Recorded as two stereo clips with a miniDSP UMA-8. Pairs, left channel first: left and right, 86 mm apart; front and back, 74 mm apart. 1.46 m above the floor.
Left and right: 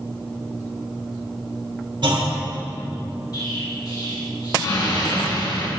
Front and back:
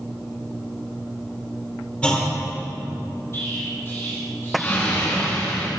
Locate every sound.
2.0 s a clunk: 75° right, 2.5 m
3.3 s an explosion: 55° left, 3.5 m